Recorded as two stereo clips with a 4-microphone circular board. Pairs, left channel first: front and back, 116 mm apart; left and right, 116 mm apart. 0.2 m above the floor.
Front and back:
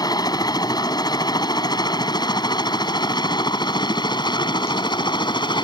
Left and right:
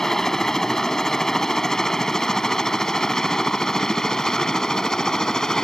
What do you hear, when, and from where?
0.0 s a helicopter: 5° left; by 5.6 s 10° left